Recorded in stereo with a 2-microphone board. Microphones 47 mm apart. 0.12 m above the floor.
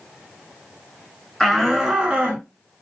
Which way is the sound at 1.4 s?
5° left (ahead or behind).